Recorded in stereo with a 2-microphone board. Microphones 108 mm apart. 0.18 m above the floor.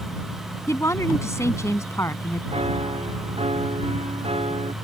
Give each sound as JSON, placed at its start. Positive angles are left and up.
{"t": 0.7, "sound": "a woman speaking", "side_deg": 30}
{"t": 2.5, "sound": "a piano", "side_deg": -70}